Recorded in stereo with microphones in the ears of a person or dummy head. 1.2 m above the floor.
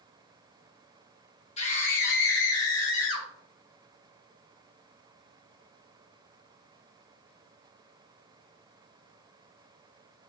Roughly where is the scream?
Left.